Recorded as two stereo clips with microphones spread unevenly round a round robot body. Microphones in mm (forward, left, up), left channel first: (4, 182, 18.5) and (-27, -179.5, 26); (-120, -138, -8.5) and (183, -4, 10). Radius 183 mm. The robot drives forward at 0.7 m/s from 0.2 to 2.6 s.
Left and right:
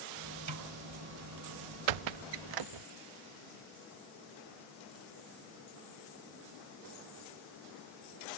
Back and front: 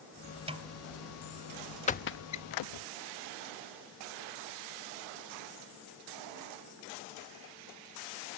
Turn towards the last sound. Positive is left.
turn(degrees=-130)